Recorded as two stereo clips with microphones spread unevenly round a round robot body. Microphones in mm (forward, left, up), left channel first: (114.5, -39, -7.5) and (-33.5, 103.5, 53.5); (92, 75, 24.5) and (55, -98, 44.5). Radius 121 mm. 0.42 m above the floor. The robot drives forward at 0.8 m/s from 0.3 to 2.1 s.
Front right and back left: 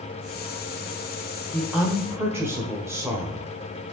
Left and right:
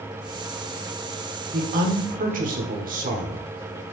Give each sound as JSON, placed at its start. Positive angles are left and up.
{"t": 1.5, "sound": "a woman speaking", "azimuth_deg": -110, "distance_m": 1.3}